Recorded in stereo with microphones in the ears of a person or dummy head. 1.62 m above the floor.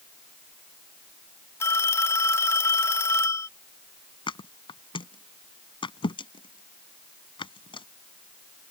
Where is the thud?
25° left (ahead or behind).